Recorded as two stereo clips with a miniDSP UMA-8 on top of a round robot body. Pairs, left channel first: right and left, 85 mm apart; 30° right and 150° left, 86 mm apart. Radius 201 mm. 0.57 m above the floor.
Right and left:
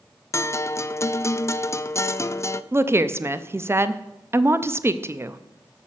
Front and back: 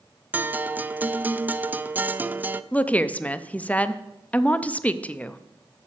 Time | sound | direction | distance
0.3 | a guitar | 140° right | 0.5 m
2.7 | a woman speaking | 40° left | 0.8 m